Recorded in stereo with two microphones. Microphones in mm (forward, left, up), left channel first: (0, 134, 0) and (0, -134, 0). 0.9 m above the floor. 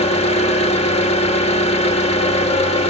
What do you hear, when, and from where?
0.0 s an engine running: 25° left (ahead or behind), 1.4 m